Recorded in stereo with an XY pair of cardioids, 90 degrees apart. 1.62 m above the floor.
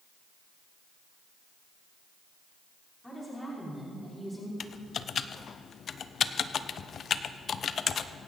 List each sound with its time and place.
3.0 s a woman speaking: 15° left, 5 m; by 4.5 s 5° left, 4.5 m
4.6 s typing on a keyboard: 55° left, 0.6 m